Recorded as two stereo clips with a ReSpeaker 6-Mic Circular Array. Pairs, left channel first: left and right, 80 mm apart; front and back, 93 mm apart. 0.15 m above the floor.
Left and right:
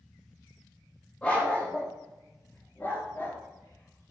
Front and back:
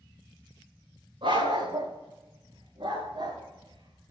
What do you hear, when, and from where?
1.2 s a dog barking: 165° left, 6 m; by 4.1 s 145° left, 7 m